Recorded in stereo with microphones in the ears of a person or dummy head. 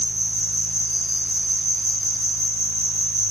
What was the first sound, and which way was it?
An insect, 20° right (ahead or behind).